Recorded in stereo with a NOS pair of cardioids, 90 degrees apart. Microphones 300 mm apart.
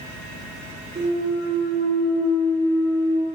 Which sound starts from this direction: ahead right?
A clunk, at 0.9 s.